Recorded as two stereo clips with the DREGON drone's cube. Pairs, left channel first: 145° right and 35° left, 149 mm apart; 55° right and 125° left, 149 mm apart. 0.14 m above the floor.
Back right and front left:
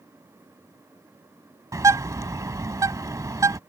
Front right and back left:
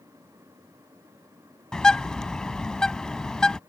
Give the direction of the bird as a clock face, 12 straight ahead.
11 o'clock.